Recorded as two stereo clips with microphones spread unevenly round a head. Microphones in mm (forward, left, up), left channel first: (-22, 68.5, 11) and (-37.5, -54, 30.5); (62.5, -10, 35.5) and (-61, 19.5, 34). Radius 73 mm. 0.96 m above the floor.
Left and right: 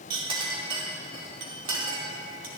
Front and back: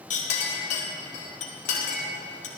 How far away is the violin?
I don't hear a violin.